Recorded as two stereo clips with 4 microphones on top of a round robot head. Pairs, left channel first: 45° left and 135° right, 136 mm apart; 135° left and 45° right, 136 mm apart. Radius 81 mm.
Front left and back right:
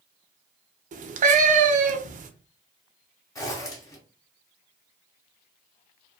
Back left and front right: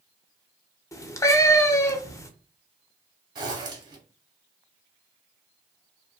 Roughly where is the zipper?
Ahead.